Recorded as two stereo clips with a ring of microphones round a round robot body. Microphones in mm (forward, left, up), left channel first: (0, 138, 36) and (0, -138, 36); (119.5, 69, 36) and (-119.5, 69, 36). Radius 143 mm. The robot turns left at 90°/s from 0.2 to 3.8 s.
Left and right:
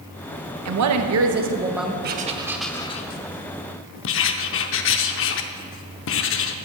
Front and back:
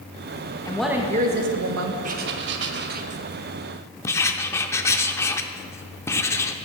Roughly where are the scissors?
I don't hear scissors.